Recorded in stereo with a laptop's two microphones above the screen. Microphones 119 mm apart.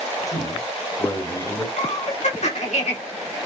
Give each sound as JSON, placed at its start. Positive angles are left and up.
{"t": 0.3, "sound": "a man speaking", "side_deg": 30, "distance_m": 2.0}
{"t": 1.8, "sound": "laughter", "side_deg": 75, "distance_m": 2.5}